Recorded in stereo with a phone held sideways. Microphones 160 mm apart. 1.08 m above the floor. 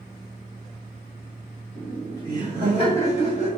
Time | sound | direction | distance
1.8 | laughter | 20° left (ahead or behind) | 1.8 m